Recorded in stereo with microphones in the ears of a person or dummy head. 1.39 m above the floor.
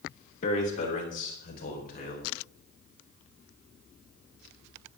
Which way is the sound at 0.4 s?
40° left (ahead or behind).